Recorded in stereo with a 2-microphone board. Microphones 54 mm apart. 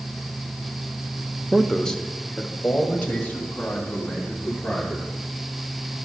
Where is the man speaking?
5° right (ahead or behind), 0.6 m; by 5.1 s 35° left (ahead or behind), 4 m.